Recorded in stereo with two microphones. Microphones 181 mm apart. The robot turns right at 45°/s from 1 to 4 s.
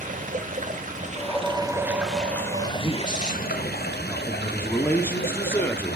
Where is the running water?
50° right, 1.5 m; by 6.0 s 85° left, 1.5 m.